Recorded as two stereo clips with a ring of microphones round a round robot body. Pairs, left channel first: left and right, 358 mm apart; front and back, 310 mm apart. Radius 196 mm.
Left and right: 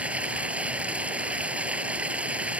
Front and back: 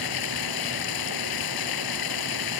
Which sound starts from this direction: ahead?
Running water, at 0.0 s.